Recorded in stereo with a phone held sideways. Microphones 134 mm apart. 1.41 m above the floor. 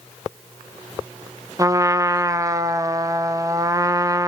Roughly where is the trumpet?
Right.